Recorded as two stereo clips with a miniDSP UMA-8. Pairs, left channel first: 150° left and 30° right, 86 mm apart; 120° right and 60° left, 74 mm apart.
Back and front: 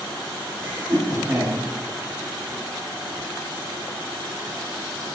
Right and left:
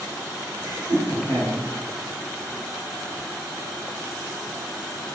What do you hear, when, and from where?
0.6 s laughter: 45° left, 1.7 m